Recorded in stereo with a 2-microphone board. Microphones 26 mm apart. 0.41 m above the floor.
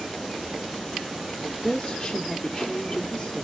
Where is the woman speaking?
25° left (ahead or behind), 0.9 m.